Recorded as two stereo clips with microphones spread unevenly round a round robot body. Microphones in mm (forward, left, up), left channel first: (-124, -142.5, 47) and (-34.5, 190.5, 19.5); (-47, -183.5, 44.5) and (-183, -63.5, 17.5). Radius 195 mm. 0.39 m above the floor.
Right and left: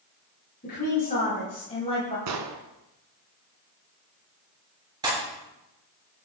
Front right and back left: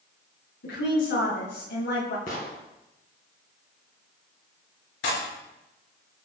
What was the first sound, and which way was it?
A woman speaking, 40° right.